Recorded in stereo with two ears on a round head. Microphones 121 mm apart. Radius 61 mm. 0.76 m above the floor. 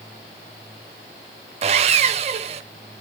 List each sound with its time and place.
1.6 s sawing: 50° right (ahead or behind), 0.6 m